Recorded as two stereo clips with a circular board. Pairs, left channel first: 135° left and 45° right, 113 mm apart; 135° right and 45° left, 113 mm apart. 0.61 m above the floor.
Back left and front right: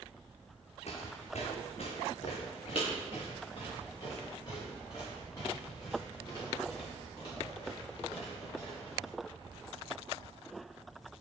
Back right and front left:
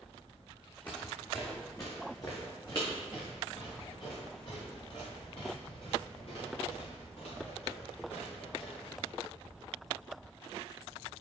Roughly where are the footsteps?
Behind left.